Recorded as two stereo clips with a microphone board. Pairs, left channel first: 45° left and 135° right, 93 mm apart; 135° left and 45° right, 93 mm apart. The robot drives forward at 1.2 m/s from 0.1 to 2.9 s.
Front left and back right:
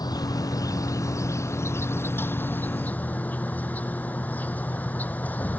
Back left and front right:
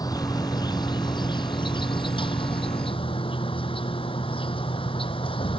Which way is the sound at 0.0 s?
90° left.